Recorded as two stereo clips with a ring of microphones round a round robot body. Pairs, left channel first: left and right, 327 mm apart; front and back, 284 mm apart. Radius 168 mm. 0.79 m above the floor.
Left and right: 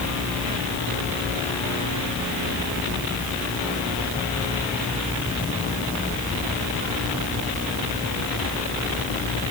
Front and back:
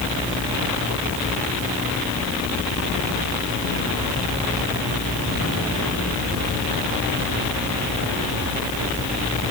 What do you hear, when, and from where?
Only background noise.